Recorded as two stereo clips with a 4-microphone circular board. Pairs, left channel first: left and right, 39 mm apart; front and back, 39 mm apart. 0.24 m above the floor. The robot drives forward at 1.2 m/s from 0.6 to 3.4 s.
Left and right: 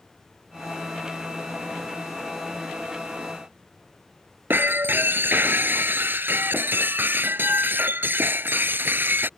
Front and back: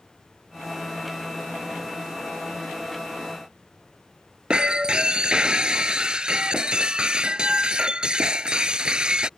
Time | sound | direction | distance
4.5 | breaking glass | 115° right | ?